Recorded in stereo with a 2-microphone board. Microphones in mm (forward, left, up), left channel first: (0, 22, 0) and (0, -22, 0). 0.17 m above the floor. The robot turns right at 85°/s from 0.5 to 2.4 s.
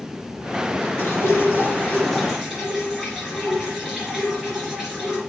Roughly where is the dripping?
Left.